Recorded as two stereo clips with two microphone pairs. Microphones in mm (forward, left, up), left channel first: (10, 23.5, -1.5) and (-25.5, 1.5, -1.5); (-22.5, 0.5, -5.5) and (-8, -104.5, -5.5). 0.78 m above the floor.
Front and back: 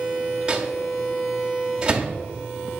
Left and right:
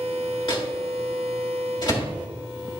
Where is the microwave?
140° left, 1.4 m.